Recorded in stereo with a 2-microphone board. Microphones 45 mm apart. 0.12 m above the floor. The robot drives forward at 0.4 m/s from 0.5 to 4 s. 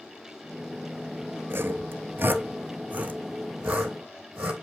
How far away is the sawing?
About 0.5 m.